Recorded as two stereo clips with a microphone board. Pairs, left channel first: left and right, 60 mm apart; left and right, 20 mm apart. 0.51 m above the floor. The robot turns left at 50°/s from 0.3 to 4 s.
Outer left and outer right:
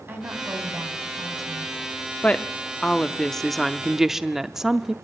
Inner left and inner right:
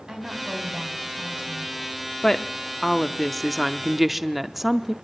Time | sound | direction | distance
0.1 | a woman speaking | 35° right | 4 m
2.2 | a woman speaking | 20° left (ahead or behind) | 0.7 m